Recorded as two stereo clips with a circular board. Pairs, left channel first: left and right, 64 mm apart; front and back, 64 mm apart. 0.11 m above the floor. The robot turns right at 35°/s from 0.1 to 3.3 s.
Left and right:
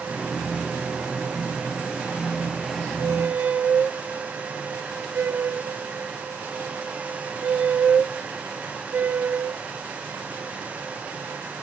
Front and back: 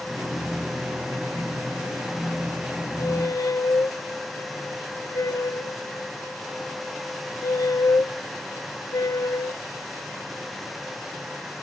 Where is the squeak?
40° right, 0.6 m; by 9.6 s 30° right, 0.6 m.